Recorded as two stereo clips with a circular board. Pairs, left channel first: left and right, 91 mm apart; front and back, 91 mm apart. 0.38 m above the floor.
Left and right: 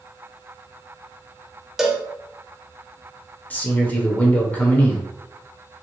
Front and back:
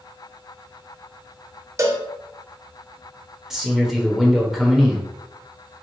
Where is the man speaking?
100° left, 0.8 m.